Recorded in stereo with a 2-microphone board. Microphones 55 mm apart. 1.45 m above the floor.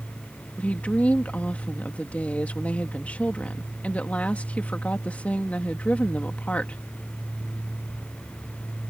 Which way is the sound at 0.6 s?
25° left (ahead or behind).